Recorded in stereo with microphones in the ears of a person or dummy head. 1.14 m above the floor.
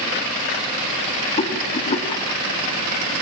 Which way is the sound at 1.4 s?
30° left (ahead or behind).